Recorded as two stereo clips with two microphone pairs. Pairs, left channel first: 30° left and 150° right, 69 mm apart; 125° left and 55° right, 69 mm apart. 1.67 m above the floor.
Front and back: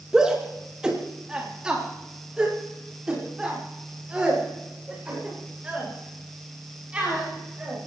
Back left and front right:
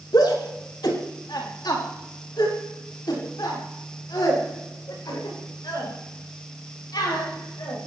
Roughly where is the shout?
Behind left.